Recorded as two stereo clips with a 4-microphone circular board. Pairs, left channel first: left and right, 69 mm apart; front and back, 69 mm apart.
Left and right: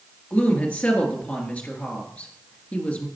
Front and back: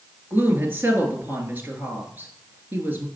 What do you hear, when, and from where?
0.3 s a woman speaking: 145° left, 1.8 m